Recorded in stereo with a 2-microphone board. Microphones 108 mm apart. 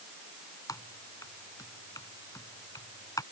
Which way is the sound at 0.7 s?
35° left (ahead or behind).